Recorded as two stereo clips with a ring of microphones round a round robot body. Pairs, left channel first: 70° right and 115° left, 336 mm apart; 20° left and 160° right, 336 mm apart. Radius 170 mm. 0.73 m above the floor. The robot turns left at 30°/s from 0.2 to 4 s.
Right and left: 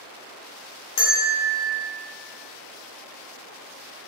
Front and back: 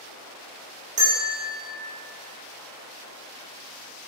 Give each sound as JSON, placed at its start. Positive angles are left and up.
{"t": 1.0, "sound": "a bell", "azimuth_deg": -85, "distance_m": 0.7}